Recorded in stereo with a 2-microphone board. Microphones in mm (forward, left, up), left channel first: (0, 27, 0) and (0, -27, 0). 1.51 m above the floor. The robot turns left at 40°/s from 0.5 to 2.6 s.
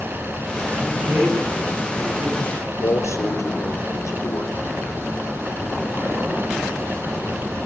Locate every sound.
0.8 s a man speaking: 35° right, 10 m; by 2.7 s 110° right, 10 m
2.8 s a man speaking: 85° left, 4.5 m